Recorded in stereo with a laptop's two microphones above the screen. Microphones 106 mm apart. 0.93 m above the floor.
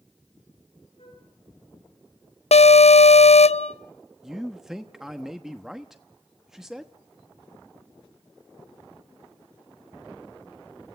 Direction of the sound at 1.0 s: 65° left (ahead or behind).